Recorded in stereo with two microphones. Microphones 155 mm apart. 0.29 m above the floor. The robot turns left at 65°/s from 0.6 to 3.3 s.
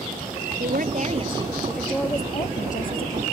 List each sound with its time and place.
0.6 s a woman speaking: 100° right; by 3.2 s 90° left